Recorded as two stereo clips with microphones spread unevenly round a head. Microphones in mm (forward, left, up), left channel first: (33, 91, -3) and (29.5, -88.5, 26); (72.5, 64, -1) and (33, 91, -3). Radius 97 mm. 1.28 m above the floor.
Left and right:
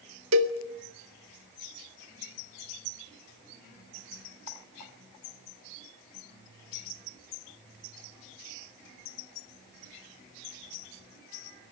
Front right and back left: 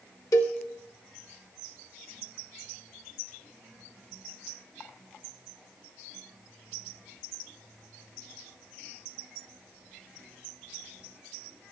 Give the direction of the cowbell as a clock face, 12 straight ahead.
3 o'clock.